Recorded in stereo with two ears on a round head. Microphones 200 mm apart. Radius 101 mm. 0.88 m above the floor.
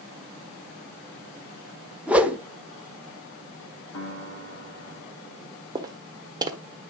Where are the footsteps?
20° right (ahead or behind), 1.3 m.